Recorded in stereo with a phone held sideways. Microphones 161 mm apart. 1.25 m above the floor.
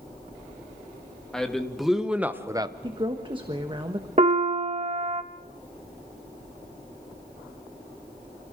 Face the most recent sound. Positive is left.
turn(degrees=-45)  # may be behind; listen again after turning